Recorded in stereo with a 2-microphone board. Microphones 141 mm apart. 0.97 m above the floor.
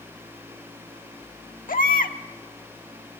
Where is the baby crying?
80° left, 1.2 m.